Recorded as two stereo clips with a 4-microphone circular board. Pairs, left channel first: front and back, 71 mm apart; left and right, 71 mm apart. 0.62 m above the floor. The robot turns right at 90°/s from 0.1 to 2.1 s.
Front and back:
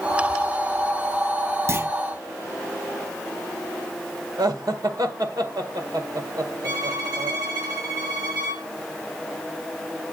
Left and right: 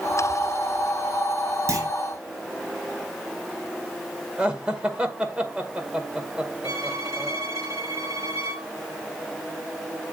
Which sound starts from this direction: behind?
Laughter, at 4.4 s.